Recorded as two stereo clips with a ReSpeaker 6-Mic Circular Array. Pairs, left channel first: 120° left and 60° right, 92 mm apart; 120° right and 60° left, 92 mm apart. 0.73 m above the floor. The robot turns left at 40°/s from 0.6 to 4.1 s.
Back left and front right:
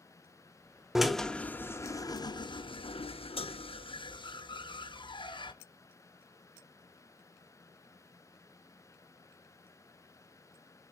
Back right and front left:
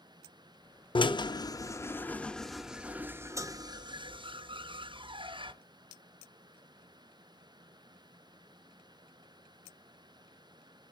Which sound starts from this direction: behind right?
A drill, at 0.9 s.